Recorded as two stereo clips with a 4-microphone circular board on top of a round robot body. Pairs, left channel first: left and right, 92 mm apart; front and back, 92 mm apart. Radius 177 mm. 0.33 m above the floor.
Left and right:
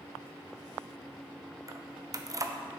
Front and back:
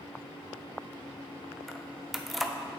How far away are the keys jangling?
About 0.7 m.